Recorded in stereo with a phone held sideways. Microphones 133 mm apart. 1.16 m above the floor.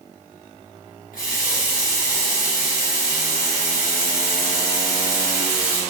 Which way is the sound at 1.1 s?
75° left (ahead or behind).